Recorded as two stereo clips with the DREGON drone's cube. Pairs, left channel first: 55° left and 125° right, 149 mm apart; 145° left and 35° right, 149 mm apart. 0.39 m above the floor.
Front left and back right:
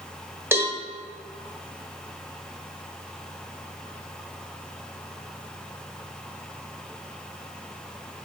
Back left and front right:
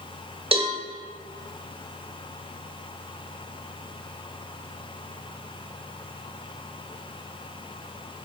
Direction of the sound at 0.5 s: 60° right.